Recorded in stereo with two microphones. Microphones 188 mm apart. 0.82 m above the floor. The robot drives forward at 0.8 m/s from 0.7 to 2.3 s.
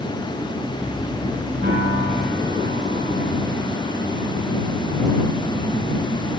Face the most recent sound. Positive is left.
turn(degrees=-90)